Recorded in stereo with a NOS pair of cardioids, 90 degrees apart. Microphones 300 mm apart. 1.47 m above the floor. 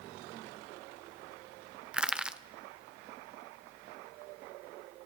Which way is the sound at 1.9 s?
5° right.